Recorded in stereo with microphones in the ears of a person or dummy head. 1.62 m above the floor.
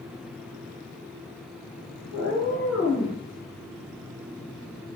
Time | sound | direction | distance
2.1 | a cat meowing | 15° left (ahead or behind) | 1.8 m